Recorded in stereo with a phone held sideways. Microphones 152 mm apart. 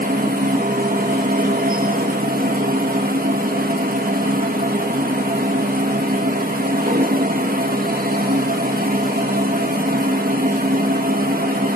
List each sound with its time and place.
0.0 s a machine running: 70° right (ahead or behind), 1.5 m